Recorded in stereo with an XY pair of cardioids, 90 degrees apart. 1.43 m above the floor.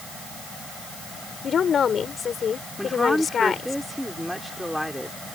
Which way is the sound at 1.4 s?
55° left.